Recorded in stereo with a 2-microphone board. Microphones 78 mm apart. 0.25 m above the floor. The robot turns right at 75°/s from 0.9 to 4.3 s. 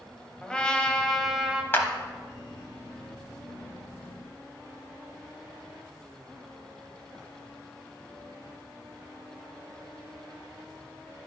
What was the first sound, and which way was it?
A trumpet, 10° left (ahead or behind).